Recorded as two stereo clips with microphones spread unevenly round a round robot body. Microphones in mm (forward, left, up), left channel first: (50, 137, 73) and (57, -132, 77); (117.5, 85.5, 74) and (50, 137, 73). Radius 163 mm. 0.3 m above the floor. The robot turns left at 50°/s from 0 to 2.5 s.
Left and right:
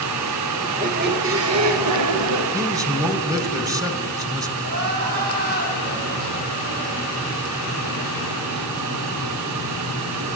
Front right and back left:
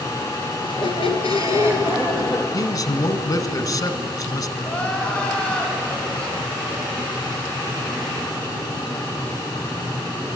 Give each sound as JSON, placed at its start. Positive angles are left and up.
{"t": 0.6, "sound": "a squeak", "azimuth_deg": -15, "distance_m": 2.0}
{"t": 2.5, "sound": "a man speaking", "azimuth_deg": -15, "distance_m": 1.8}
{"t": 4.6, "sound": "crying", "azimuth_deg": -105, "distance_m": 3.5}